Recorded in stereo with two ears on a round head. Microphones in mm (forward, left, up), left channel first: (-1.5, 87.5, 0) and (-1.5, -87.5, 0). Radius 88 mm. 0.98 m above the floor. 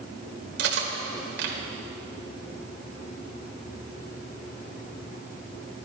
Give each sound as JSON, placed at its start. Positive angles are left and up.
{"t": 0.6, "sound": "cutlery clinking", "side_deg": -60, "distance_m": 2.5}